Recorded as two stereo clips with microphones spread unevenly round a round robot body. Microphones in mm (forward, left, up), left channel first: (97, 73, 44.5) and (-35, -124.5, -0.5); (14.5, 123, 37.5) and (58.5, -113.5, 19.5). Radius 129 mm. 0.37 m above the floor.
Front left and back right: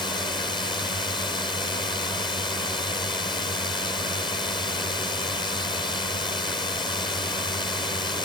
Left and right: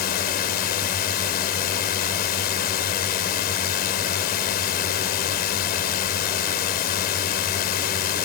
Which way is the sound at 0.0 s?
130° left.